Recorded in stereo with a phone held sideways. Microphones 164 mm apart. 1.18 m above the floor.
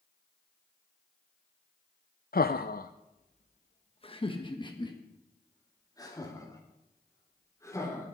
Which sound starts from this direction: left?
Laughter, at 2.3 s.